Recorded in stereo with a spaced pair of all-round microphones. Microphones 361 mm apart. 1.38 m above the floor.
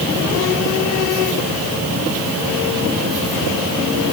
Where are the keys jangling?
I don't hear keys jangling.